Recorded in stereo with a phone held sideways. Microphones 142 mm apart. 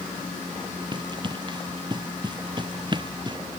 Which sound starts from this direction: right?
Running footsteps, at 0.9 s.